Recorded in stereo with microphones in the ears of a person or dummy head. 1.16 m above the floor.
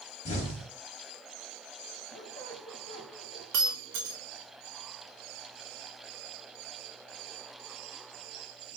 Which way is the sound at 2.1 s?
20° left (ahead or behind).